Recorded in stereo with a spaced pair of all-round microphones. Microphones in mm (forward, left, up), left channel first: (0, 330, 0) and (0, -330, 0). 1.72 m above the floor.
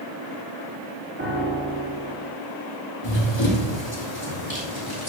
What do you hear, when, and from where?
1.2 s a piano: 20° right (ahead or behind), 3 m
3.0 s running footsteps: 40° left (ahead or behind), 2.5 m